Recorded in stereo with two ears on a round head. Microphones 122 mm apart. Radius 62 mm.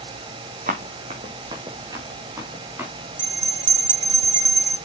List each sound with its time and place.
0.7 s running footsteps: 50° right (ahead or behind), 2.5 m; by 2.9 s 15° right (ahead or behind), 5 m
3.2 s a bell: 35° right (ahead or behind), 1.0 m